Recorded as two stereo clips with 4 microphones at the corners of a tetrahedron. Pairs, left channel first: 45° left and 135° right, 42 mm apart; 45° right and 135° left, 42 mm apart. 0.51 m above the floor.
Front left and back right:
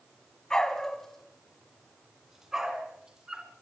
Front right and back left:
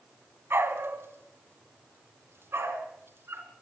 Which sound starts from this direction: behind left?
A dog barking, at 0.5 s.